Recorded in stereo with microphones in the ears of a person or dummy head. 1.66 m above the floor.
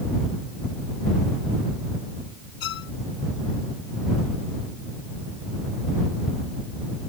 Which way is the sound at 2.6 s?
55° left (ahead or behind).